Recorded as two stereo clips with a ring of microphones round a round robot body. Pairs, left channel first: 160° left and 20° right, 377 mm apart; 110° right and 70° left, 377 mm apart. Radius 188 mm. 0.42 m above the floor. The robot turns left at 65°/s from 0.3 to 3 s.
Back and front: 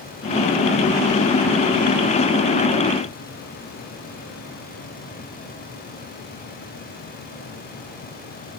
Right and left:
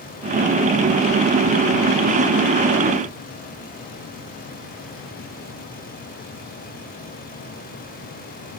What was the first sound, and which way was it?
Only background noise.